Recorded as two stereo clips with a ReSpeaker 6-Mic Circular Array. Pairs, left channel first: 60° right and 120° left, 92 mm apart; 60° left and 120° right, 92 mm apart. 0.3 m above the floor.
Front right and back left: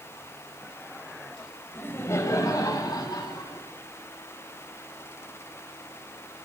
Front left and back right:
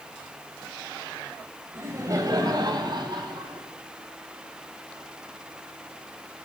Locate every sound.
1.8 s laughter: 105° right, 1.0 m; by 3.6 s 100° right, 2.5 m